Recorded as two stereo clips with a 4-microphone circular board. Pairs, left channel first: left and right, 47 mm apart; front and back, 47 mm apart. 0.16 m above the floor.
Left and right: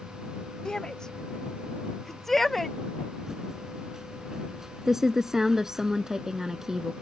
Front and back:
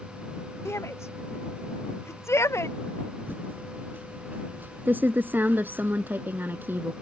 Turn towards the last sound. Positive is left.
turn(degrees=-165)